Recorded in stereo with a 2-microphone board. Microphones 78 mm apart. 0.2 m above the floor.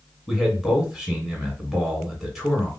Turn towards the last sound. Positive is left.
turn(degrees=0)  # may be behind; listen again after turning